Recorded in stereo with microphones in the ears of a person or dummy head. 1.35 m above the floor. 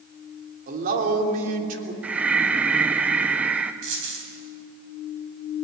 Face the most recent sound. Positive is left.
turn(degrees=-65)  # may be behind; listen again after turning